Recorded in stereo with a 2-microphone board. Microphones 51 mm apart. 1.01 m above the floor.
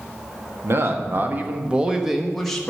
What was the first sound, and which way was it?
A man speaking, 55° right (ahead or behind).